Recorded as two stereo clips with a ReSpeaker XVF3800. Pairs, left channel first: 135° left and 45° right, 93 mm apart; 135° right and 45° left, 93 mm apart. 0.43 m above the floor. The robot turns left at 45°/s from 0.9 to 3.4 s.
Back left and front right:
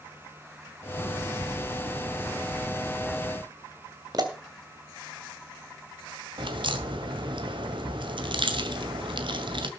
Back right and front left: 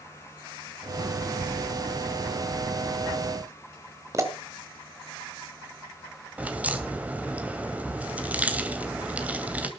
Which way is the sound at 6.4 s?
30° right.